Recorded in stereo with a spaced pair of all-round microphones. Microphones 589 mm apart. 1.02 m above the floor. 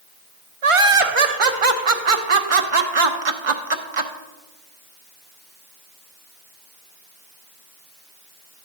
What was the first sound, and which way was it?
Laughter, 55° right (ahead or behind).